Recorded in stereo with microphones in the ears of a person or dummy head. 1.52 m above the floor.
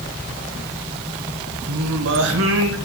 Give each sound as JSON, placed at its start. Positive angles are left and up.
{"t": 1.7, "sound": "singing", "side_deg": -70, "distance_m": 1.2}